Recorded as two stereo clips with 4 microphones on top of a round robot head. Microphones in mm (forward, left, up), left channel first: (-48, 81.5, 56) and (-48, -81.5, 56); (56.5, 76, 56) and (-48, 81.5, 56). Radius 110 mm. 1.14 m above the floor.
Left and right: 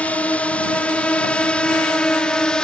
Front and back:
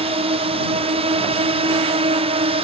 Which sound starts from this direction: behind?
A drone, at 0.0 s.